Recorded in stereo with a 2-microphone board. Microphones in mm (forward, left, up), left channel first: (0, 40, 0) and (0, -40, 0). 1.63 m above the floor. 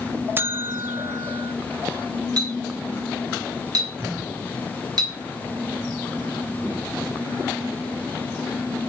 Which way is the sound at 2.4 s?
55° right (ahead or behind).